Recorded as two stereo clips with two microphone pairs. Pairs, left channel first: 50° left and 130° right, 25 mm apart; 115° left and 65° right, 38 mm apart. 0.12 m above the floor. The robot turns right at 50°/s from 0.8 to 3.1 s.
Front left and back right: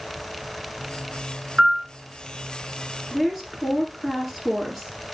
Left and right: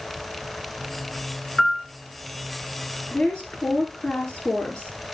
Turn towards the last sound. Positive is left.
turn(degrees=170)